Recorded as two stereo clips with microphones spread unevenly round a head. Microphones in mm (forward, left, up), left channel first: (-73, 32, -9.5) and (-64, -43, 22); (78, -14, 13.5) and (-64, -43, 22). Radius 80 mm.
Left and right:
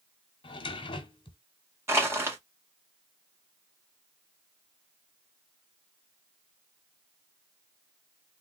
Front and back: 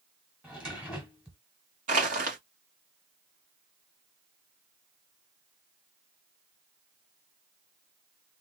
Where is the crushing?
140° right, 1.8 m.